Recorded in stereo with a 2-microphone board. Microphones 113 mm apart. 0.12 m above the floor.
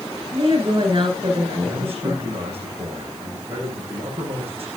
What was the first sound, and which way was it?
A woman speaking, 50° right (ahead or behind).